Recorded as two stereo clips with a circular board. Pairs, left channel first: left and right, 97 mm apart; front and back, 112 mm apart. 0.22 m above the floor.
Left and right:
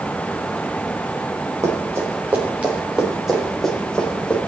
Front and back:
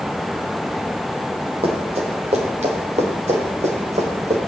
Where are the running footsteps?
150° right, 3.5 m; by 4.4 s 170° left, 4 m.